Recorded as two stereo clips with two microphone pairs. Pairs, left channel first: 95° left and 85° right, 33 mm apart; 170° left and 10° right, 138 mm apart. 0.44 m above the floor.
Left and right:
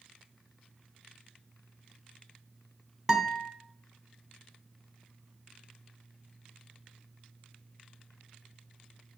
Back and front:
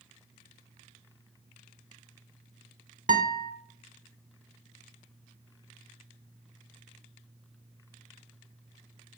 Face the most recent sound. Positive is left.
turn(degrees=0)